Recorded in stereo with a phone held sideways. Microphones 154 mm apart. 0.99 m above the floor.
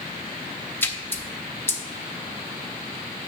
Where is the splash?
15° left (ahead or behind), 0.8 m.